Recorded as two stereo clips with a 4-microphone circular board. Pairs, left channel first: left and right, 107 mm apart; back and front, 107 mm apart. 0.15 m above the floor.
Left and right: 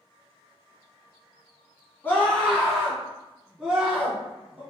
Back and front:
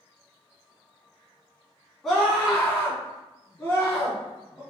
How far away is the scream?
About 1.7 m.